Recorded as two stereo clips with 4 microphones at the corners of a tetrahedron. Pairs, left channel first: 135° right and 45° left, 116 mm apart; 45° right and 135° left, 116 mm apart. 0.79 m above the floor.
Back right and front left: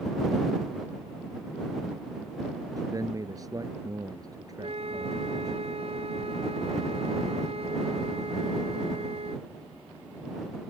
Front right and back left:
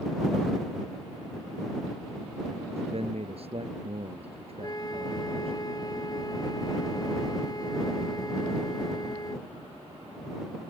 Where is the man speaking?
105° left.